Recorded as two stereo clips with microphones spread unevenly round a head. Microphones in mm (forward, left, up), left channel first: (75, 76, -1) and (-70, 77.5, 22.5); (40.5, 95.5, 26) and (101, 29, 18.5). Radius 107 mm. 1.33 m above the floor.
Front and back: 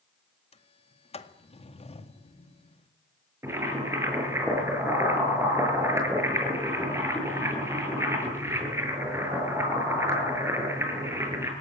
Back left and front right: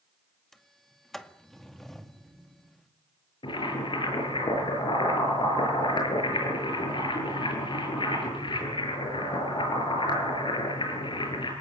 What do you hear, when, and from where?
0.5 s a sliding door: 45° left, 2 m
3.4 s boiling: 110° left, 8 m